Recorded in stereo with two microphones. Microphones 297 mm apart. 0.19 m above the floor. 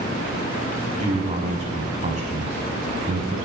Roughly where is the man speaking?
Right.